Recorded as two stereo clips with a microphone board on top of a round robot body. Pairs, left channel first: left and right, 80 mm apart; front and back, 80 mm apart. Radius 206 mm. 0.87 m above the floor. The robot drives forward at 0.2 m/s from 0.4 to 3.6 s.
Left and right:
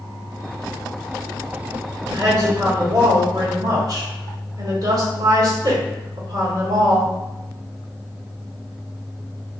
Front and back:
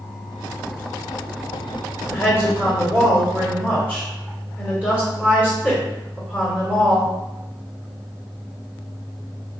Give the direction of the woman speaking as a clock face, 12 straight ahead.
3 o'clock.